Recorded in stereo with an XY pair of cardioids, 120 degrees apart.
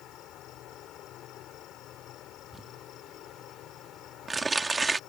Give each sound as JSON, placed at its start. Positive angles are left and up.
{"t": 0.0, "sound": "an insect", "azimuth_deg": 70}
{"t": 2.5, "sound": "crumpling", "azimuth_deg": -20}